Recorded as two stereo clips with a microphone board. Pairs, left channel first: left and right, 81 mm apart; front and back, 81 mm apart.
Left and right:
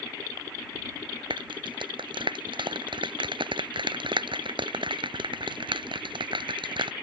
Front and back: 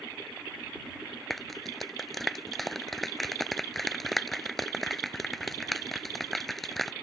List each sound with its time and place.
1.3 s a clap: 90° right